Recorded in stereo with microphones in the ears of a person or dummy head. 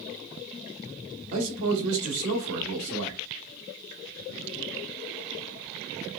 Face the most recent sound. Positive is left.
turn(degrees=-70)  # may be behind; listen again after turning